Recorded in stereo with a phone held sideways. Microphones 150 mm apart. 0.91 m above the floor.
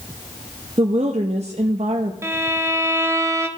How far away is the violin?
About 0.8 m.